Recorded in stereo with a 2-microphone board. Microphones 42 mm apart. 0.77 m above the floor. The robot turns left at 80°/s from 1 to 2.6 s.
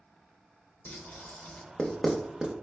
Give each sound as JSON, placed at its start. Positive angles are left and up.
{"t": 0.8, "sound": "writing", "side_deg": 50, "distance_m": 0.6}